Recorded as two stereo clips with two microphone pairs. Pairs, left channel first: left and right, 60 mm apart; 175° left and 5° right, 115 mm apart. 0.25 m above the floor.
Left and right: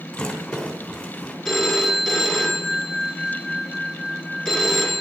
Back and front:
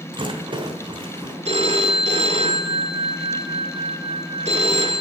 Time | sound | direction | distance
0.1 | a rattle | 20° left | 3 m
1.4 | a phone ringing | straight ahead | 2 m